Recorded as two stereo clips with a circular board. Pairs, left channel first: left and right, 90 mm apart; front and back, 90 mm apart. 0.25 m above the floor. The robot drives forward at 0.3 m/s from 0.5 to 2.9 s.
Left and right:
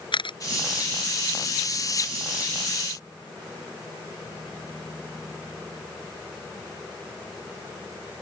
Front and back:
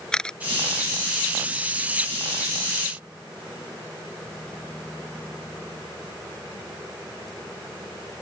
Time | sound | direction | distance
0.1 | a camera shutter | 80° left | ?